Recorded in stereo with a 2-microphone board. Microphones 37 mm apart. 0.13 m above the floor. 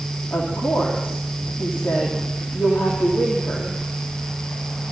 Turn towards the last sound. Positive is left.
turn(degrees=80)